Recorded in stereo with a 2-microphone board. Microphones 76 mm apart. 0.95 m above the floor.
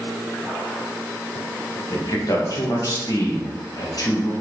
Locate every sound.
1.9 s a man speaking: 50° left (ahead or behind), 1.2 m